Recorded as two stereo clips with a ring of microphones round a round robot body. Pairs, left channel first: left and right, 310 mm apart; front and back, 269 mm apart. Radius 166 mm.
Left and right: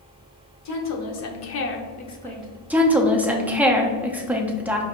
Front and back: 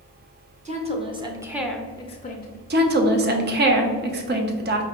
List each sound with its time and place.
0.7 s a woman speaking: 115° left, 1.1 m; by 2.6 s 15° right, 0.7 m
2.7 s a woman speaking: 170° right, 0.6 m